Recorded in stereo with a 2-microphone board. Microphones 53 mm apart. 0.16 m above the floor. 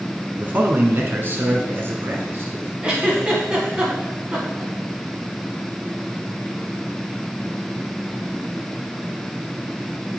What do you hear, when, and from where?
0.4 s a man speaking: 35° right (ahead or behind), 1.2 m; by 2.7 s 50° right (ahead or behind), 2 m
2.8 s a giggle: 20° right (ahead or behind), 1.7 m